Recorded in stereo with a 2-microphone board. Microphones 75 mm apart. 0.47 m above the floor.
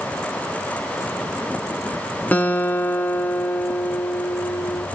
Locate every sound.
2.3 s a guitar: 25° left (ahead or behind), 1.7 m